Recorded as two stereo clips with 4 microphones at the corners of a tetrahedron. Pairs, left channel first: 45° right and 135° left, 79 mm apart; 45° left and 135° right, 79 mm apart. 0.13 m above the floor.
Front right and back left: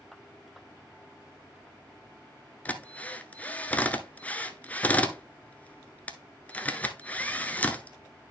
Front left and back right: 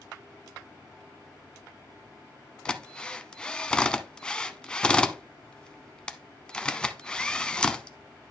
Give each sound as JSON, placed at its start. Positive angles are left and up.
{"t": 2.6, "sound": "a drill", "azimuth_deg": -15, "distance_m": 0.7}